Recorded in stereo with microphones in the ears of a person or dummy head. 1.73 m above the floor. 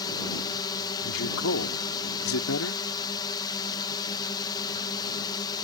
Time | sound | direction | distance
0.0 | a drone | 20° left (ahead or behind) | ?
1.0 | a man speaking | 80° left | ?